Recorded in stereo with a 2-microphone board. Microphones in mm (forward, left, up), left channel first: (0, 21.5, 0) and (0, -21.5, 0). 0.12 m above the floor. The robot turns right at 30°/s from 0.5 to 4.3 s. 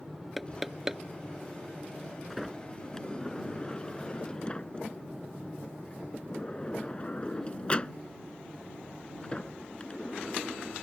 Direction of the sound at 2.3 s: 5° left (ahead or behind).